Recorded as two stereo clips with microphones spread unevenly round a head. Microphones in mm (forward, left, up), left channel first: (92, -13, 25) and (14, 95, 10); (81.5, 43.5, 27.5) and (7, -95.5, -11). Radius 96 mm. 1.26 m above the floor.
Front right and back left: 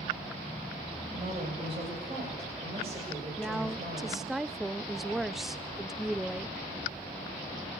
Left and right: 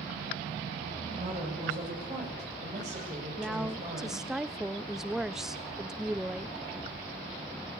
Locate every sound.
1.1 s a woman speaking: 175° right, 7.5 m
3.4 s a woman speaking: 165° right, 0.5 m